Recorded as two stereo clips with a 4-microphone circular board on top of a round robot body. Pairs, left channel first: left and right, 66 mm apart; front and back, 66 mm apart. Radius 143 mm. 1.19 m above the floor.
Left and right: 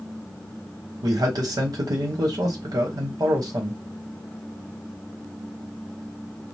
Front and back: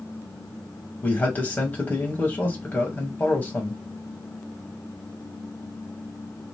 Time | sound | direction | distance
1.0 | a man speaking | 65° right | 1.0 m